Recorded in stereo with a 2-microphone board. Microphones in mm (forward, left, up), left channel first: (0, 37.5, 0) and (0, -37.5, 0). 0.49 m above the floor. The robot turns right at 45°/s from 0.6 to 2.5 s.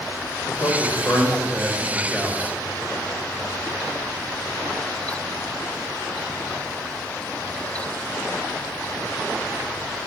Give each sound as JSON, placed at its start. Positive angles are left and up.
{"t": 0.5, "sound": "a man speaking", "azimuth_deg": 105, "distance_m": 2.0}